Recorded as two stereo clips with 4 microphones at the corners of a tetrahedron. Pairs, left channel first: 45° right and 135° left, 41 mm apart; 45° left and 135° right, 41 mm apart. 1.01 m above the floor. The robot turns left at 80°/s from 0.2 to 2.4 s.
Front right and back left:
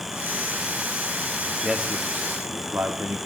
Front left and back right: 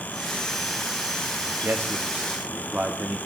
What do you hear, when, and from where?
1.6 s a man speaking: 135° right, 1.6 m; by 3.2 s 165° left, 1.6 m